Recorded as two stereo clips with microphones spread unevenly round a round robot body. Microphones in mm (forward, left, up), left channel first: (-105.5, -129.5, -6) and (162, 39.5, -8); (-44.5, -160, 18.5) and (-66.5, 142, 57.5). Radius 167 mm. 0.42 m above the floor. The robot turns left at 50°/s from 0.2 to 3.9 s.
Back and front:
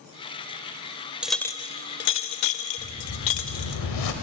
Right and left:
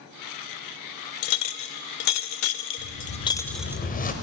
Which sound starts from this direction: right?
A whoosh, at 2.8 s.